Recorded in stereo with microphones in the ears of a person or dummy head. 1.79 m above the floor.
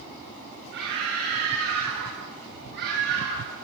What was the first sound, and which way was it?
A scream, 70° right (ahead or behind).